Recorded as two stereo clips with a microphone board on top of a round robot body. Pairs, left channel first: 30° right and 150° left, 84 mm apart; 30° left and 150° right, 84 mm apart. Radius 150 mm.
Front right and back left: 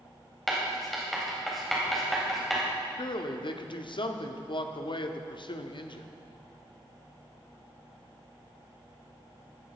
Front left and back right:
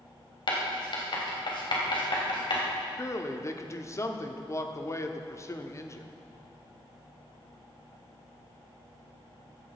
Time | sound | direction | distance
0.5 | writing | 55° left | 3.5 m
3.0 | a man speaking | 20° right | 1.3 m